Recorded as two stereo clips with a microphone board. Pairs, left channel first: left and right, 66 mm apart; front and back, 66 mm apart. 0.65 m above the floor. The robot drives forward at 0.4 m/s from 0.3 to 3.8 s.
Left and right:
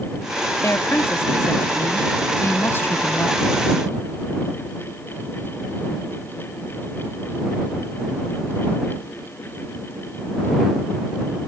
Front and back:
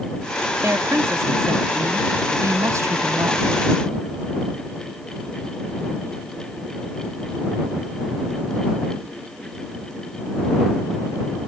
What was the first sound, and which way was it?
A woman speaking, 135° left.